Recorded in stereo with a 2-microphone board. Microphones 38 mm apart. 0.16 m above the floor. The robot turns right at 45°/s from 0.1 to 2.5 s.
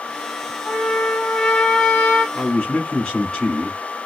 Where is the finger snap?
I don't hear a finger snap.